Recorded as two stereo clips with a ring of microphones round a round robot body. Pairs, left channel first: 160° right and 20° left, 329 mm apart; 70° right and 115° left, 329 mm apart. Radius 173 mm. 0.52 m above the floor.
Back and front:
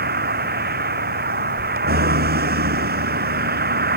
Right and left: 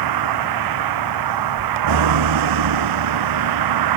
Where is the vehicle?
85° left.